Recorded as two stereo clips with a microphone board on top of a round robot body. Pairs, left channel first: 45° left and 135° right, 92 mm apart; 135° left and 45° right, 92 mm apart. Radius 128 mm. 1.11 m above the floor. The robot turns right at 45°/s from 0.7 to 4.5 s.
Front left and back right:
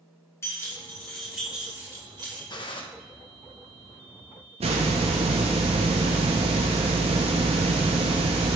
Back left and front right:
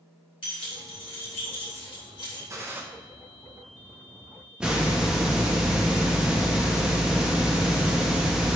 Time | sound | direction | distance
0.4 | keys jangling | 110° left | 3 m
2.5 | a gunshot | 10° left | 1.5 m
4.6 | a hiss | 125° right | 0.6 m